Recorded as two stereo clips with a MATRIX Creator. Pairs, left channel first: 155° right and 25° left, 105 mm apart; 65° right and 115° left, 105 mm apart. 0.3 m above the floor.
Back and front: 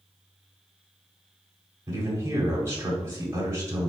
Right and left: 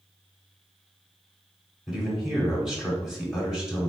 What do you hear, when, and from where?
1.9 s a man speaking: 35° left, 1.2 m